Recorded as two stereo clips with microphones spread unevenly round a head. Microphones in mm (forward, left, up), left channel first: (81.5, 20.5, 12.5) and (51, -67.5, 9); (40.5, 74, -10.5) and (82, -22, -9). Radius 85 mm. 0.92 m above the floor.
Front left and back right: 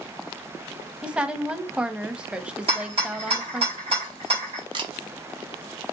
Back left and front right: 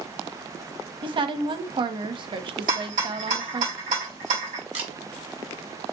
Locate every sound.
1.0 s a woman speaking: 30° right, 0.9 m
2.7 s a rattle: 95° right, 3 m
4.7 s a camera shutter: 100° right, 1.2 m